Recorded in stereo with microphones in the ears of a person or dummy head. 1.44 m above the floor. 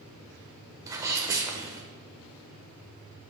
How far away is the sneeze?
About 0.9 m.